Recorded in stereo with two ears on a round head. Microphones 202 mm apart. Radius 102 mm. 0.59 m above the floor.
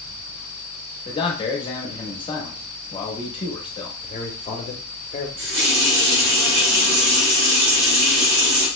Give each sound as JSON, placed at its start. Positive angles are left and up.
{"t": 1.1, "sound": "a man speaking", "side_deg": 25, "distance_m": 0.8}
{"t": 4.0, "sound": "a man speaking", "side_deg": 30, "distance_m": 0.8}
{"t": 5.4, "sound": "a running tap", "side_deg": -75, "distance_m": 2.0}